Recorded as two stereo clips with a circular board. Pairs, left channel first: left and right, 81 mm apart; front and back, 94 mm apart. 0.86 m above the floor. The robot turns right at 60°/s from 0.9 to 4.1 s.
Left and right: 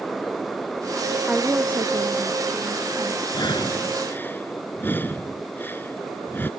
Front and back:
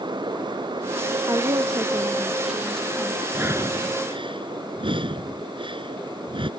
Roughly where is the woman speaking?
Behind.